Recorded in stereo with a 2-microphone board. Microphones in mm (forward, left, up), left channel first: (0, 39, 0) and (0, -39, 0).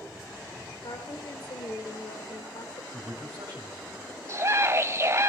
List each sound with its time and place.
0.8 s a woman speaking: 70° left (ahead or behind), 2.0 m
2.9 s a man speaking: 60° right (ahead or behind), 4 m
4.3 s a scream: 35° right (ahead or behind), 0.8 m